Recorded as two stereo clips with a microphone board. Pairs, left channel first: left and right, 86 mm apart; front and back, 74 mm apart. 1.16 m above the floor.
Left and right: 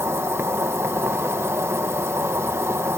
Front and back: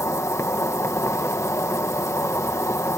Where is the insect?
40° right.